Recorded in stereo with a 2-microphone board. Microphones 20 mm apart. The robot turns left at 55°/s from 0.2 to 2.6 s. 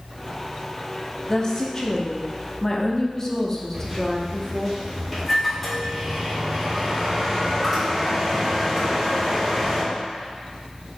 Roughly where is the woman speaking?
Left.